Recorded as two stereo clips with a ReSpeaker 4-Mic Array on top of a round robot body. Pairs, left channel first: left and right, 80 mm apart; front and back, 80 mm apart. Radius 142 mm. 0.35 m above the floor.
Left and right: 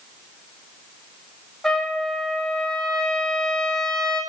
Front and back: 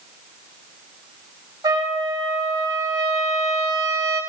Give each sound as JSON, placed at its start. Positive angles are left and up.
{"t": 1.6, "sound": "a trumpet", "azimuth_deg": 170, "distance_m": 1.8}